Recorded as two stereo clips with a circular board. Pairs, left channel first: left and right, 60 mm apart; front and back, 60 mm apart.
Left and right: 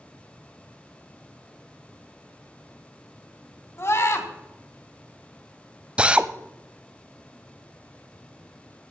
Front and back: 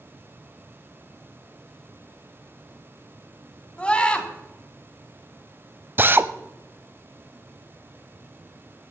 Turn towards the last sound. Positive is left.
turn(degrees=-150)